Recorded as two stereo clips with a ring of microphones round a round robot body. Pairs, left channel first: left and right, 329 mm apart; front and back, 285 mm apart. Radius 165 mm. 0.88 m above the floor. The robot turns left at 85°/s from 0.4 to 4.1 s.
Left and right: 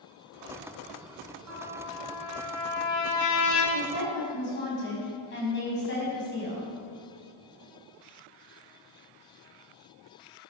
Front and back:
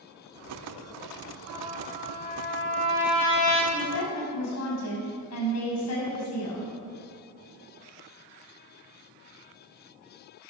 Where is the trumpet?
130° right, 3 m; by 3.6 s 45° left, 3 m.